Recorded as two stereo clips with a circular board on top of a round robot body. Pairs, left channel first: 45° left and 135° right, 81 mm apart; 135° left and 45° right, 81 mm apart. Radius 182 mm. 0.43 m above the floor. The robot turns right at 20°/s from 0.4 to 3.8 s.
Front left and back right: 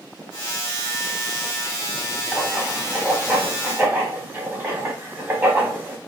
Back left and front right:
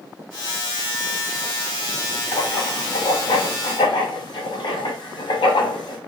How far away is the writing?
About 1.0 m.